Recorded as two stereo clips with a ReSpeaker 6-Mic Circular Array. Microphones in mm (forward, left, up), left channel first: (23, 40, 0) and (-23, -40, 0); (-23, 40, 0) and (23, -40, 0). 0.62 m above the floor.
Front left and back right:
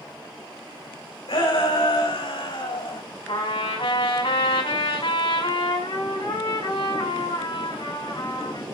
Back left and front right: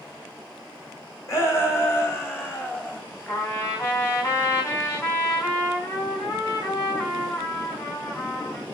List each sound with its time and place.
1.3 s a shout: 65° left, 4.5 m; by 3.0 s 50° left, 4 m
3.3 s a trumpet: 60° left, 4 m